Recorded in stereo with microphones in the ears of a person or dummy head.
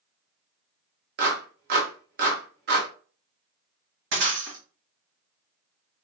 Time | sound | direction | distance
1.2 | a clap | 65° right (ahead or behind) | 1.1 m
4.1 | breaking glass | 55° right (ahead or behind) | 1.3 m